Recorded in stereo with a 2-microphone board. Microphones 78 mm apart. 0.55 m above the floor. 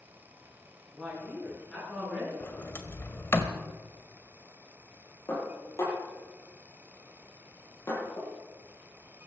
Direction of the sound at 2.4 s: 30° left (ahead or behind).